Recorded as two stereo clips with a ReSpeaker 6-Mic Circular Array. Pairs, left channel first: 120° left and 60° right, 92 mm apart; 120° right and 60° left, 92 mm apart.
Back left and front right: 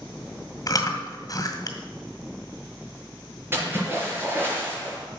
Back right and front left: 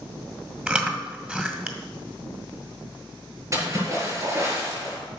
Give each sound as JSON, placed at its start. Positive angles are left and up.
{"t": 0.7, "sound": "chewing", "azimuth_deg": 125, "distance_m": 1.8}
{"t": 3.5, "sound": "a splash", "azimuth_deg": 5, "distance_m": 5.5}